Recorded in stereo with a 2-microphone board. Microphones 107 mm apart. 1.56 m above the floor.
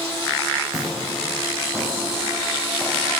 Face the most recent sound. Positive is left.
turn(degrees=0)  # may be behind; listen again after turning